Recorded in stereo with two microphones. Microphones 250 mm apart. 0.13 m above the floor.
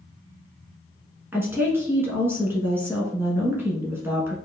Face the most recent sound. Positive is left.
turn(degrees=-10)  # may be behind; listen again after turning